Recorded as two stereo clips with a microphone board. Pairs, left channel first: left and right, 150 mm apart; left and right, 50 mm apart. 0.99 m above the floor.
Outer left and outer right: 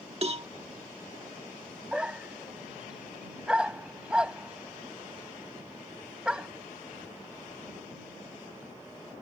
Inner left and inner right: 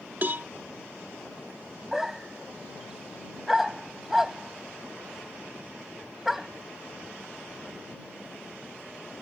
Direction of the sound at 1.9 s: 5° right (ahead or behind).